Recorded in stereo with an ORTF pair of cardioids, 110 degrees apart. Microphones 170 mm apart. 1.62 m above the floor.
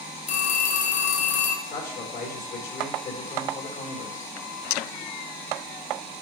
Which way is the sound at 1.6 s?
60° left.